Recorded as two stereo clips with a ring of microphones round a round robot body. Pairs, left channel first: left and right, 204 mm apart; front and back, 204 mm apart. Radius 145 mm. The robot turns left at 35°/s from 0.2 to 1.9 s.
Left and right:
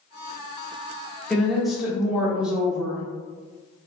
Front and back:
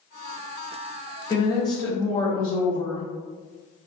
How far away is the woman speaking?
About 0.9 m.